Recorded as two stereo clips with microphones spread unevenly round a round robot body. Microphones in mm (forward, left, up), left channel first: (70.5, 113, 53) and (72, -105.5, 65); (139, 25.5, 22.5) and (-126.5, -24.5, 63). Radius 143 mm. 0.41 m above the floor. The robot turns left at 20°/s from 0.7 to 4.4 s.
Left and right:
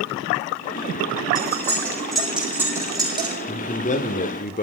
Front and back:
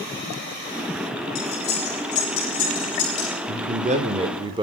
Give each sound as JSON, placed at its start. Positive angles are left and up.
{"t": 1.4, "sound": "cutlery clinking", "azimuth_deg": 15, "distance_m": 9.5}
{"t": 3.5, "sound": "a man speaking", "azimuth_deg": 135, "distance_m": 1.3}